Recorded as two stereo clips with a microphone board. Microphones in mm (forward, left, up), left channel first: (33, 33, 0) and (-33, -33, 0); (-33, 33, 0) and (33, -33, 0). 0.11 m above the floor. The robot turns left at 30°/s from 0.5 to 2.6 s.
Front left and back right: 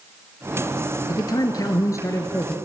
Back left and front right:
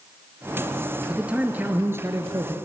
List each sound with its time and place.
1.1 s a man speaking: 35° left, 1.5 m; by 2.5 s 10° right, 1.5 m